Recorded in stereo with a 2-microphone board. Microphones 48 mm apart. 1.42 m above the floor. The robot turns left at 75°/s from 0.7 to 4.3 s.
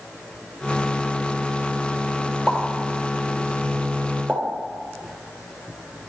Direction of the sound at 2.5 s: 5° right (ahead or behind).